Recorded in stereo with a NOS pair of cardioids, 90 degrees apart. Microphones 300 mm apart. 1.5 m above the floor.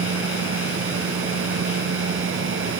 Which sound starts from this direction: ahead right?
A machine running, at 0.0 s.